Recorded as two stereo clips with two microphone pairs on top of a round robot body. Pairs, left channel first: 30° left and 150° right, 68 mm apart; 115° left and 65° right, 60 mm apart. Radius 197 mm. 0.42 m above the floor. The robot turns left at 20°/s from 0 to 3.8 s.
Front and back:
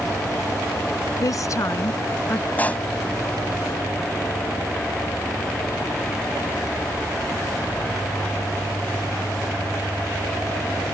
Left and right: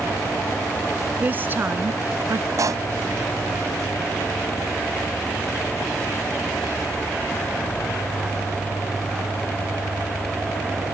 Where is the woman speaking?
Straight ahead; by 2.5 s 30° right.